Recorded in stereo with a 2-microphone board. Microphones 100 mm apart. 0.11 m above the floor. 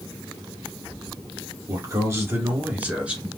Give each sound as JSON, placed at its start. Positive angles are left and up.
{"t": 1.7, "sound": "a man speaking", "side_deg": -35, "distance_m": 1.9}